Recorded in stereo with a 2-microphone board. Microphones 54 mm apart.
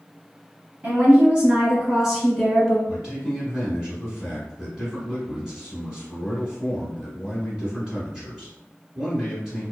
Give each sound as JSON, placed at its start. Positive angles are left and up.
{"t": 0.8, "sound": "a woman speaking", "side_deg": -25, "distance_m": 1.9}
{"t": 2.9, "sound": "a man speaking", "side_deg": -5, "distance_m": 1.1}